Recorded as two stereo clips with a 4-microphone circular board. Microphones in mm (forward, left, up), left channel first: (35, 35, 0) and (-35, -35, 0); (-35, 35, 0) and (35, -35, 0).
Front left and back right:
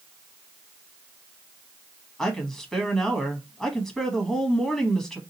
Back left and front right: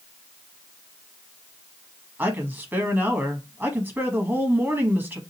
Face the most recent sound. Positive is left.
turn(degrees=-30)